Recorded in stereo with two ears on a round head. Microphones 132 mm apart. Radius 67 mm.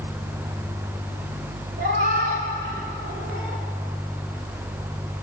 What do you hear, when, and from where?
1.8 s a cat meowing: 75° right (ahead or behind), 4 m; by 3.6 s 70° right (ahead or behind), 3 m